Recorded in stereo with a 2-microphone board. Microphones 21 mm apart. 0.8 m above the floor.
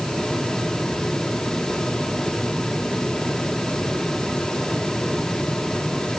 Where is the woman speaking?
I don't hear a woman speaking.